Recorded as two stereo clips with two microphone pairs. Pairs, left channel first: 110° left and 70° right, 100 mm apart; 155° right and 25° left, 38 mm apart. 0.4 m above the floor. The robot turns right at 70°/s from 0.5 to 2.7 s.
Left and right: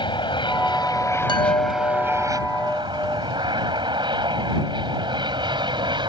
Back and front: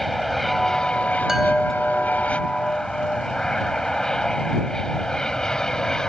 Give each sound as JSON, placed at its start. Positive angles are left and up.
{"t": 0.0, "sound": "an aircraft", "azimuth_deg": 120}
{"t": 1.3, "sound": "a chime", "azimuth_deg": 95}